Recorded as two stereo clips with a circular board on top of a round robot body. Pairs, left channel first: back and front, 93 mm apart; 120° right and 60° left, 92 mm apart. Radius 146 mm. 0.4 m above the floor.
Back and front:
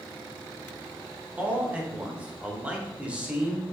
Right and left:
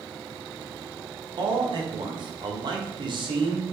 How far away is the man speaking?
About 1.9 m.